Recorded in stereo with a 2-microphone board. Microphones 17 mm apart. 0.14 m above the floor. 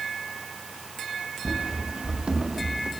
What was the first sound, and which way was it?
Running footsteps, 70° right (ahead or behind).